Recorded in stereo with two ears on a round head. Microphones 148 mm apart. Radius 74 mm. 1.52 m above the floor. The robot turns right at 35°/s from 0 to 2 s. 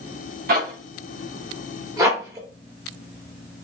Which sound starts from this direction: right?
A zipper, at 0.5 s.